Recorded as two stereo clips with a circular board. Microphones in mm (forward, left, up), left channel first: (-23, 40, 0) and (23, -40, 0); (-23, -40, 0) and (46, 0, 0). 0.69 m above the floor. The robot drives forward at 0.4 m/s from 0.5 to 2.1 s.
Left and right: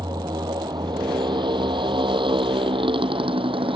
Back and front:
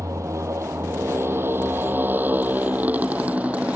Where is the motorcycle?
20° right; by 3.8 s 45° right.